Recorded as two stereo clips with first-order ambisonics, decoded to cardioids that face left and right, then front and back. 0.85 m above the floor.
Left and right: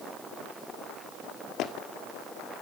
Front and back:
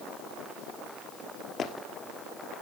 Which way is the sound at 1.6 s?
50° left.